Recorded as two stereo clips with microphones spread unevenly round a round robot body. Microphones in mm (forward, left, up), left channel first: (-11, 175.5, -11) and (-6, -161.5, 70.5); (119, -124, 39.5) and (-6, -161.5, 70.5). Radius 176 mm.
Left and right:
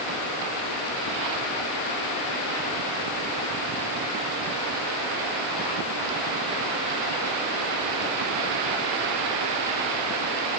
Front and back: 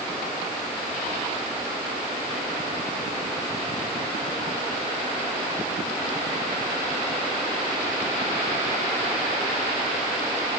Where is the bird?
No bird in this recording.